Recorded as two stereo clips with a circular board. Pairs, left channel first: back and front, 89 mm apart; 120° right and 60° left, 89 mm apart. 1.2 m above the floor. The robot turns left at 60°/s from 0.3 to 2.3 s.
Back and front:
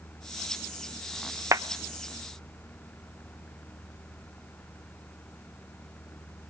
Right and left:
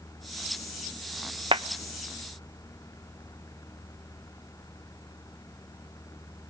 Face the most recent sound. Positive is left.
turn(degrees=5)